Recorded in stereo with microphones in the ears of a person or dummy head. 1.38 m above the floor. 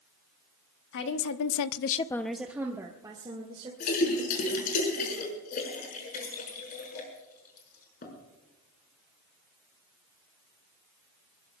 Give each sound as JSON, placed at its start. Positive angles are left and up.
{"t": 0.9, "sound": "a woman speaking", "side_deg": 55, "distance_m": 1.5}
{"t": 3.8, "sound": "a splash", "side_deg": 45, "distance_m": 5.5}